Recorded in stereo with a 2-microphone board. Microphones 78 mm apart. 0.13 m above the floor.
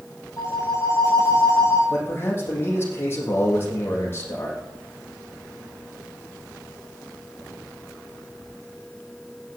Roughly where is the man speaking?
Left.